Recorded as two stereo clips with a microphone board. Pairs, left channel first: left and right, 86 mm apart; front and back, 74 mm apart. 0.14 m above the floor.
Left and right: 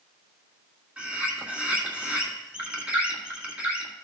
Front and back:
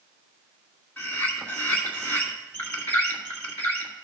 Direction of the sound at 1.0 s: 35° right.